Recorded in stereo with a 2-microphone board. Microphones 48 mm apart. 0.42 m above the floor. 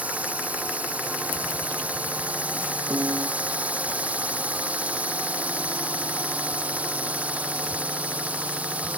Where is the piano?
85° right.